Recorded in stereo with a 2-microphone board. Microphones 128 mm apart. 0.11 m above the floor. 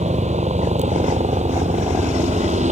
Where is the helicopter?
65° right (ahead or behind).